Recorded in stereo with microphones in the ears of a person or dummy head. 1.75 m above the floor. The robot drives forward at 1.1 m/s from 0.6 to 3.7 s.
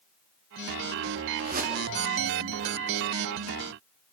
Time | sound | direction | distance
1.4 | a whoosh | 45° right (ahead or behind) | 2.5 m